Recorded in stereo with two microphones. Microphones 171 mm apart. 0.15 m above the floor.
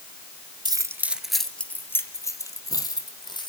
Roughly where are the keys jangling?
Right.